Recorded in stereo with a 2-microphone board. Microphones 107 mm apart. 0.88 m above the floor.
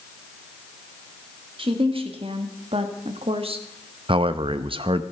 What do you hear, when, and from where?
1.6 s a woman speaking: 55° right (ahead or behind), 2.0 m; by 3.6 s 60° right (ahead or behind), 1.3 m
4.1 s a man speaking: 55° right (ahead or behind), 0.7 m